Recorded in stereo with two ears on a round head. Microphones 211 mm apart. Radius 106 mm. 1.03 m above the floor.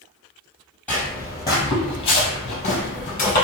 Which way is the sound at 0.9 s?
5° left (ahead or behind).